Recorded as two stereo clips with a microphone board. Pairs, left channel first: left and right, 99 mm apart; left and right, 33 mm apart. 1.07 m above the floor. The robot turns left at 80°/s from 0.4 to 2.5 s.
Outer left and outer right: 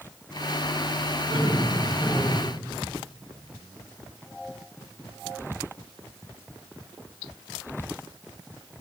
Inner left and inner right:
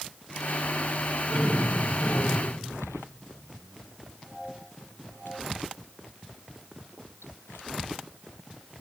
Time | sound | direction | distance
1.3 | laughter | 85° left | 5.5 m